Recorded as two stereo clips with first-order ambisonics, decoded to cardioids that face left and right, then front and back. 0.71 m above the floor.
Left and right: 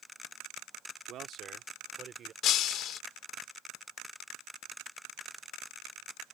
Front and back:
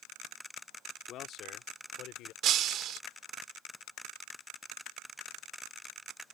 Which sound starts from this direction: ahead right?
A man speaking, at 1.1 s.